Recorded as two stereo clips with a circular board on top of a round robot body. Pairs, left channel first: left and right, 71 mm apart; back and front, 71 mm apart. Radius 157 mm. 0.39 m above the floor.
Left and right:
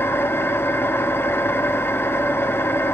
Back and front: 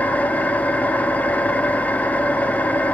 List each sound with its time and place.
0.0 s an engine running: 125° left, 1.3 m